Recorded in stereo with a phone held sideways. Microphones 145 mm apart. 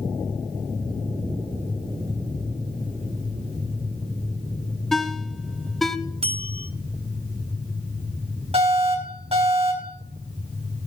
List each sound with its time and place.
4.9 s a ringtone: centre (ahead or behind), 0.8 m
6.2 s a bell: 40° right (ahead or behind), 1.2 m
8.5 s an alarm: 45° right (ahead or behind), 6 m